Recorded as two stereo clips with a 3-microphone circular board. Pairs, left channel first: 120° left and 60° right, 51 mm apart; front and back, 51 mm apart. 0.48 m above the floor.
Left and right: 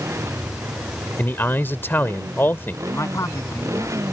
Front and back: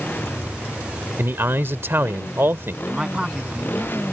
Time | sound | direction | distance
0.0 | a motorcycle | 50° right | ?
1.2 | a man speaking | 155° left | ?
2.9 | a man speaking | 110° left | ?